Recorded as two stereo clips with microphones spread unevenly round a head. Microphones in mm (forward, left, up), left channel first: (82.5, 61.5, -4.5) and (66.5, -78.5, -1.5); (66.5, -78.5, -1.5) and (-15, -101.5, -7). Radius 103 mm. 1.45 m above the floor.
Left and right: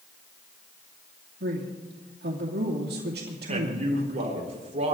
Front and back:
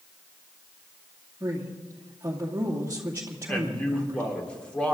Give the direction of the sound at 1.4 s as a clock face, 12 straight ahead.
3 o'clock.